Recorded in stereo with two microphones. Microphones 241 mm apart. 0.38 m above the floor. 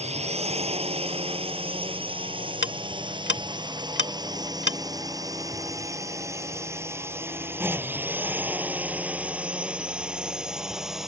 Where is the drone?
25° right (ahead or behind); by 11.1 s centre (ahead or behind).